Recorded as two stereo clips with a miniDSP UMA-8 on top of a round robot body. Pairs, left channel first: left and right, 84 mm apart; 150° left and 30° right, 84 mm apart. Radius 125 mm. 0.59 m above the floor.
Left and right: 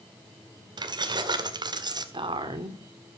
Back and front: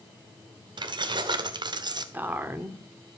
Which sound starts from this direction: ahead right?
Keys jangling, at 0.8 s.